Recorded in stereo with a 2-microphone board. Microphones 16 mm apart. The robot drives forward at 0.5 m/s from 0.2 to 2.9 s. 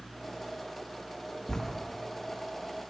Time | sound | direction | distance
1.5 | writing | 40° left (ahead or behind) | 0.9 m